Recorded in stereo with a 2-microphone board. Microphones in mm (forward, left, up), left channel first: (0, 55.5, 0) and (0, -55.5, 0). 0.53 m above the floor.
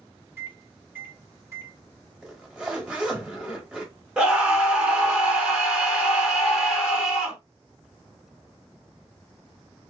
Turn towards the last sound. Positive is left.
turn(degrees=-10)  # may be behind; listen again after turning